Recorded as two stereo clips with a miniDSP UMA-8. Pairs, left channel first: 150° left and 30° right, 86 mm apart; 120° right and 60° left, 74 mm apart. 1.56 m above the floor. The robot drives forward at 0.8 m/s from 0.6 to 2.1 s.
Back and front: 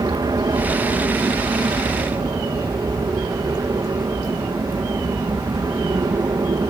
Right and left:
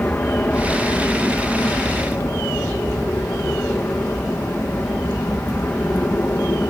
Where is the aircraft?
60° right; by 6.7 s 65° right.